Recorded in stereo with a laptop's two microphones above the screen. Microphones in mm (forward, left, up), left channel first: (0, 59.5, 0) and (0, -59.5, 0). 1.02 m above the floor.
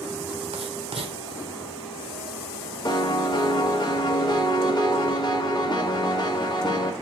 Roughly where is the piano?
Left.